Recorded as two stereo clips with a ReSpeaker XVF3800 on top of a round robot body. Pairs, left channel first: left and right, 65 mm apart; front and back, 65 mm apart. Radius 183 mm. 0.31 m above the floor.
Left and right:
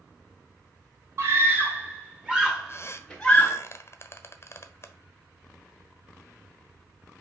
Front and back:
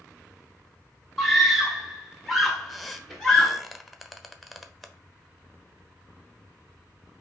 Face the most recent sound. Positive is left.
turn(degrees=90)